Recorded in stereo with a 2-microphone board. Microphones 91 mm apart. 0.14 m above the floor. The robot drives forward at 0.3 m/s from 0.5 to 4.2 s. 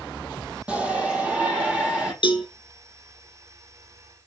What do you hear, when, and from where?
0.7 s a shout: 15° right (ahead or behind), 5 m; by 2.1 s 10° right (ahead or behind), 5.5 m
2.2 s a cowbell: 55° left (ahead or behind), 1.4 m